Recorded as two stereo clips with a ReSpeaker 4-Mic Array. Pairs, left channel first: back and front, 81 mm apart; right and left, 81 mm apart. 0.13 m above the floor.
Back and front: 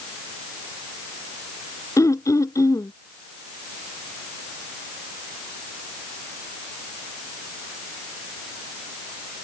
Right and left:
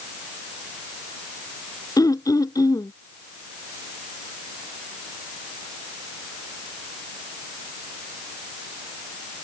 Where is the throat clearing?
130° right.